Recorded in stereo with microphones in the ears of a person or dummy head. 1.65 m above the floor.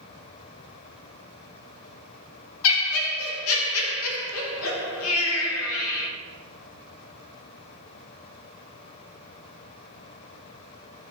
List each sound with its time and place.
2.6 s laughter: 85° left, 0.6 m